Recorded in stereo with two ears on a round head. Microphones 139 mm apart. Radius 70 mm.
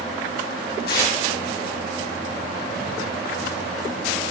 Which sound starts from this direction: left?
Tearing paper, at 0.9 s.